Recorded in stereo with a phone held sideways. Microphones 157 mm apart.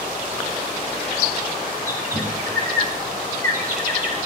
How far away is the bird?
About 2 m.